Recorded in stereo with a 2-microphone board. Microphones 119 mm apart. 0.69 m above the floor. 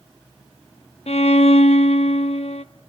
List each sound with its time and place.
1.1 s a violin: 70° left (ahead or behind), 0.6 m